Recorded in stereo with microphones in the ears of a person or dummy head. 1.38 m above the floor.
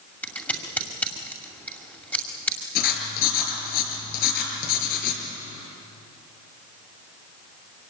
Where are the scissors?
15° left (ahead or behind), 2.5 m.